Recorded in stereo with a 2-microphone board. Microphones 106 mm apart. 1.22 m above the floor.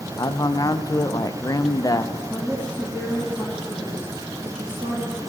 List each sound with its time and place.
0.2 s a man speaking: 35° left (ahead or behind), 0.5 m
2.3 s a woman speaking: 15° right (ahead or behind), 1.8 m